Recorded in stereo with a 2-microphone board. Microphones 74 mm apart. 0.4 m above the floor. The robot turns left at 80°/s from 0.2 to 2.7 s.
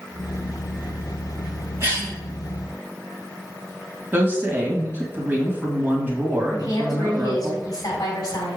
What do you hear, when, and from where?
1.8 s a cough: 40° right (ahead or behind), 3 m; by 2.1 s 15° right (ahead or behind), 3 m
4.1 s a woman speaking: 30° right (ahead or behind), 2 m
6.5 s a woman speaking: 55° left (ahead or behind), 3 m